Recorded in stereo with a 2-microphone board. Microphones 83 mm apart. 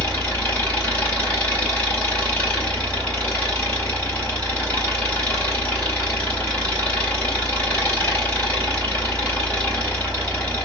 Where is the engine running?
15° left (ahead or behind), 2.5 m.